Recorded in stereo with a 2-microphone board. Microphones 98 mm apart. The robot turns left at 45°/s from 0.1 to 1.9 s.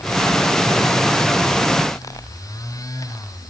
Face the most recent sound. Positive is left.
No sound to turn to.